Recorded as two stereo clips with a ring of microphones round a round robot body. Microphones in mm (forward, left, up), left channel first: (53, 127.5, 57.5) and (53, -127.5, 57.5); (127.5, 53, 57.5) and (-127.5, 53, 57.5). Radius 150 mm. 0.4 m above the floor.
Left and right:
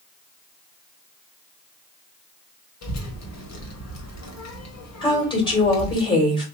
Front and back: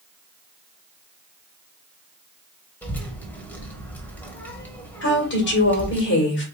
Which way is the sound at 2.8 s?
85° left.